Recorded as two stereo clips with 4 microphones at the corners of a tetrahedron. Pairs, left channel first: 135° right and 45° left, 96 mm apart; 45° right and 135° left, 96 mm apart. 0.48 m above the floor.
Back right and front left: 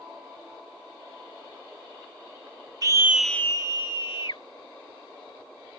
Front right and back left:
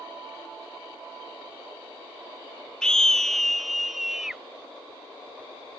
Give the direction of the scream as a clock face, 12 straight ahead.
11 o'clock.